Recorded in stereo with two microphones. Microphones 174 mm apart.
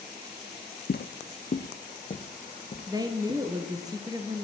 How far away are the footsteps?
About 0.5 m.